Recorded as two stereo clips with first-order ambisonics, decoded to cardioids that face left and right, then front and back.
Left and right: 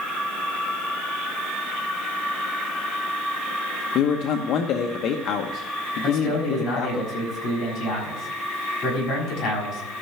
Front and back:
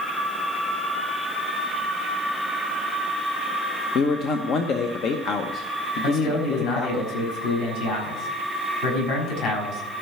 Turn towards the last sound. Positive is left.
turn(degrees=30)